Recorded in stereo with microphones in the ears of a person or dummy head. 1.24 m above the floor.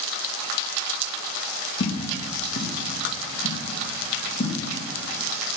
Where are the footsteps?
45° left (ahead or behind), 3.5 m; by 4.6 s 40° left (ahead or behind), 5 m.